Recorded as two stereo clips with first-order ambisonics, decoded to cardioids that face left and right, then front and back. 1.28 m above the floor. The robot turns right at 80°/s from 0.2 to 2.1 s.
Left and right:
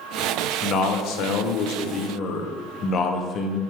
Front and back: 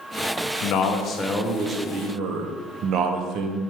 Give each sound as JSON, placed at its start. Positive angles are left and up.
{"t": 0.6, "sound": "a man speaking", "azimuth_deg": 25, "distance_m": 0.5}